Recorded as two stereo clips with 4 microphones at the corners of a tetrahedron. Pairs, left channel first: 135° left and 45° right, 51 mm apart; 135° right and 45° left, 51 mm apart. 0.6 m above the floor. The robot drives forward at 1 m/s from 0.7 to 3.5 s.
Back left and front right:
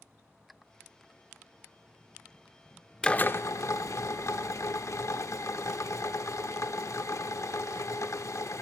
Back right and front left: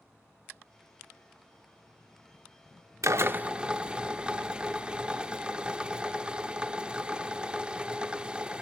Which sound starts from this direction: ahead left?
A drill, at 3.0 s.